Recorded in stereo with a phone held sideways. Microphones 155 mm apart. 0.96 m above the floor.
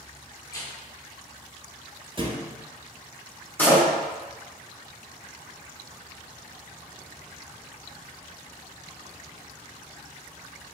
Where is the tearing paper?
20° left (ahead or behind), 0.6 m.